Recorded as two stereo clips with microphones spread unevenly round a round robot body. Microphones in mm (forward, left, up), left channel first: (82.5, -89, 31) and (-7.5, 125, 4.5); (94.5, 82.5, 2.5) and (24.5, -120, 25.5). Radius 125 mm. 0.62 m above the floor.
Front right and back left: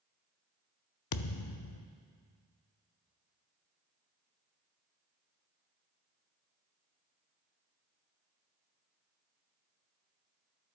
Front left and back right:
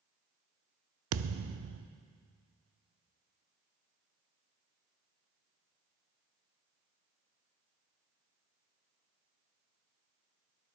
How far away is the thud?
About 0.6 m.